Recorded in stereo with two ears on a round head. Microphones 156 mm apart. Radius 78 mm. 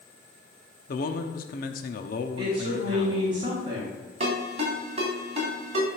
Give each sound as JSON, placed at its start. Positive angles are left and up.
{"t": 0.9, "sound": "a man speaking", "side_deg": 50, "distance_m": 0.9}
{"t": 2.4, "sound": "a woman speaking", "side_deg": -30, "distance_m": 3.5}
{"t": 4.2, "sound": "a ringtone", "side_deg": -35, "distance_m": 3.5}